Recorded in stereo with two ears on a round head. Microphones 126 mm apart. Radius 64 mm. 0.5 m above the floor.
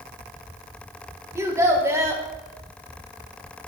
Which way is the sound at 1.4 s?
20° right (ahead or behind).